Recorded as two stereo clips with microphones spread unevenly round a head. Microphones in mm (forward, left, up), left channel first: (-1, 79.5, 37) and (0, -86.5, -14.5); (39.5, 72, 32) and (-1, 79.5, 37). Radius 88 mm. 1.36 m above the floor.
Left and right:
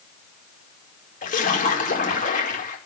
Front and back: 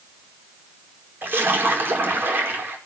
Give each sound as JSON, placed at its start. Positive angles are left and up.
{"t": 1.2, "sound": "a splash", "azimuth_deg": 140, "distance_m": 5.0}